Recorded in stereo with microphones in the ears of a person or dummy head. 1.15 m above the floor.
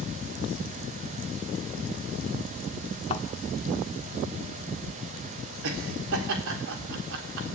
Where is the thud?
30° left (ahead or behind), 1.4 m.